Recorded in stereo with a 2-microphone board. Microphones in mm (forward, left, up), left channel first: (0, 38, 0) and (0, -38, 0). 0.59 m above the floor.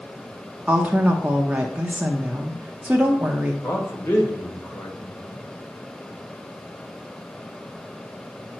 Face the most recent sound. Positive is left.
turn(degrees=35)  # may be behind; listen again after turning